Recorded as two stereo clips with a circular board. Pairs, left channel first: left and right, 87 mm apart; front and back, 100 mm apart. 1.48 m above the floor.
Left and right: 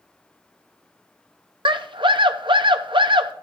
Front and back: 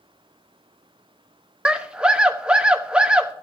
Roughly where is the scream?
Right.